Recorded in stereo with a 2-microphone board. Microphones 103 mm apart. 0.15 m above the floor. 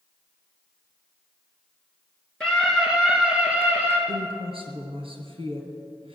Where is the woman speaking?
60° right (ahead or behind), 3 m.